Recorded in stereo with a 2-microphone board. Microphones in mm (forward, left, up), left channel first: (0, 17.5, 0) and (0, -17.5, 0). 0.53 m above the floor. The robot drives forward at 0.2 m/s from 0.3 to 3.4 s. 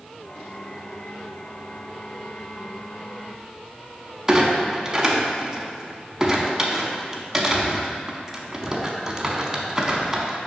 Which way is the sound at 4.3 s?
10° right (ahead or behind).